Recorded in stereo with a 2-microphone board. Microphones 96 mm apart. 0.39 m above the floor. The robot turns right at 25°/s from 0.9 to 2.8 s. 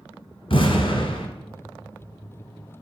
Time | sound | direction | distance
0.5 | an explosion | 60° left (ahead or behind) | 1.1 m